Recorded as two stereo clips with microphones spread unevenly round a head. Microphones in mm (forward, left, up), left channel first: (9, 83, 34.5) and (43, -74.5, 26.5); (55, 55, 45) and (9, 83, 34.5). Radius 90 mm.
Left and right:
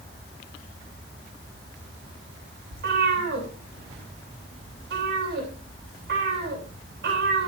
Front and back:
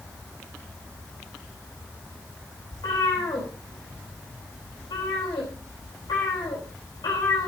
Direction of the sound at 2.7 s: 55° right.